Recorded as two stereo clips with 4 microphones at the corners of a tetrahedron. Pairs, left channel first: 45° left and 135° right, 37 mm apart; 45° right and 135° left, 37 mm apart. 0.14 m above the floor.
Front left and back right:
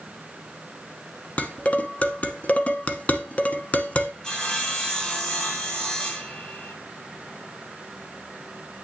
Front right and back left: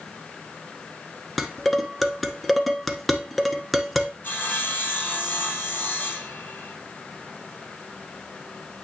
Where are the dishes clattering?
40° left, 0.9 m.